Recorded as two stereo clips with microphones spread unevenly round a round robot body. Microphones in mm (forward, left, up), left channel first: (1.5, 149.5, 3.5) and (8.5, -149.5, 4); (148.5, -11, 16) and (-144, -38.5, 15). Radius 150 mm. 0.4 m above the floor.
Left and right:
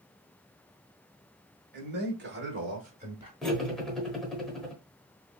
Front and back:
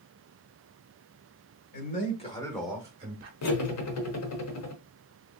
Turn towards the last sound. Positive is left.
turn(degrees=5)